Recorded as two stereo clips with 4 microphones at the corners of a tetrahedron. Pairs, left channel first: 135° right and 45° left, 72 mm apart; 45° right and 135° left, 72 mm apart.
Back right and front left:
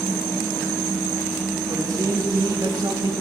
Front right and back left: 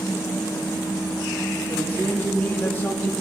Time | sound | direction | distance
1.7 | a man speaking | 20° left | 3 m